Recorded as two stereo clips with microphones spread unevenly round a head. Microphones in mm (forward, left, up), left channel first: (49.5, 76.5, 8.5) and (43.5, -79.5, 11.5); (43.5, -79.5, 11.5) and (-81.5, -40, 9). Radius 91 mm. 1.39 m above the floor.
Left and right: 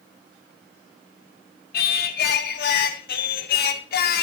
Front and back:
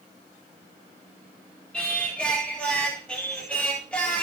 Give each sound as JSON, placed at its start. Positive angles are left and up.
{"t": 1.7, "sound": "singing", "azimuth_deg": 65, "distance_m": 1.5}